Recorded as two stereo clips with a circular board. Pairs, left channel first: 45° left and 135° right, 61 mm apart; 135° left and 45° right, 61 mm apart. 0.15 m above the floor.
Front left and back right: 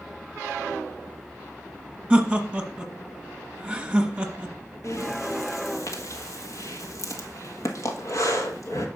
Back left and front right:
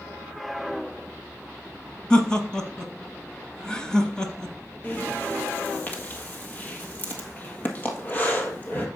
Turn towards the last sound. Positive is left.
turn(degrees=75)